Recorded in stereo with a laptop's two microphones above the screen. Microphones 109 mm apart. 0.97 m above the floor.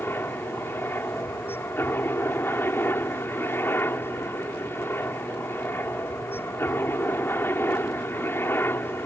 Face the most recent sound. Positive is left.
turn(degrees=20)  # may be behind; listen again after turning